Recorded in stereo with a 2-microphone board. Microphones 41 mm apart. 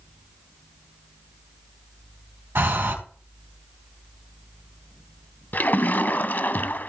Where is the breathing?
70° right (ahead or behind), 4 m.